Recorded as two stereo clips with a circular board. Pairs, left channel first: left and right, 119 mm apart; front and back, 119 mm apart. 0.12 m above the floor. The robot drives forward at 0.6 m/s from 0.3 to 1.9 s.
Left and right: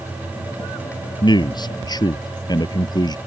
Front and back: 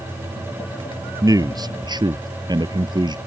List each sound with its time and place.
1.2 s a man speaking: 130° left; by 3.2 s 135° left